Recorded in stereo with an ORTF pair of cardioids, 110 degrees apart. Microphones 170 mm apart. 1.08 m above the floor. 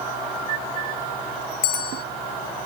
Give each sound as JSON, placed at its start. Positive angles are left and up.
{"t": 1.6, "sound": "a bell", "azimuth_deg": 70}